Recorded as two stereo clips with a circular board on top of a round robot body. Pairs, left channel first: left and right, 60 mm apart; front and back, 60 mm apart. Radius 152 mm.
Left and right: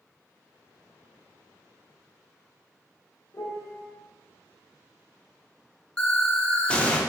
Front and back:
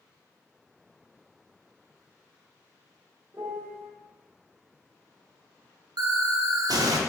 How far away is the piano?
About 0.7 m.